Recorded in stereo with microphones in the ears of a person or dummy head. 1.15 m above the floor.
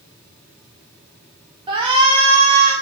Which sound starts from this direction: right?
A shout, at 1.7 s.